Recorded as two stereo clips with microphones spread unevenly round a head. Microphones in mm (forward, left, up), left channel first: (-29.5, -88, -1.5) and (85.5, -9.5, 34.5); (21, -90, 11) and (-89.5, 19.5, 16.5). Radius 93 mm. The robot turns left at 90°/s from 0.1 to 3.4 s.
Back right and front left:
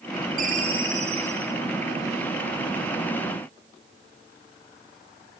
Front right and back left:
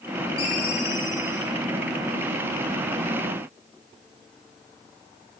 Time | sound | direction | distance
0.4 | a ringtone | 20° left | 5.5 m